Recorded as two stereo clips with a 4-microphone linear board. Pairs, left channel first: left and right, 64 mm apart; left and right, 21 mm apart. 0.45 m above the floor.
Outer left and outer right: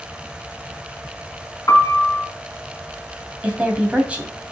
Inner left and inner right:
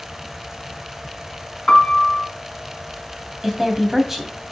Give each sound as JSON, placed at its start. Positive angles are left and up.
{"t": 1.7, "sound": "a piano", "side_deg": 55, "distance_m": 2.0}
{"t": 3.4, "sound": "a woman speaking", "side_deg": -20, "distance_m": 3.0}